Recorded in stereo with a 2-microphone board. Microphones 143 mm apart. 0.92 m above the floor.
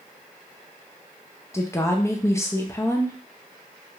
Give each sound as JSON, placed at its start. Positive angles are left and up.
{"t": 1.5, "sound": "a woman speaking", "side_deg": 20, "distance_m": 0.5}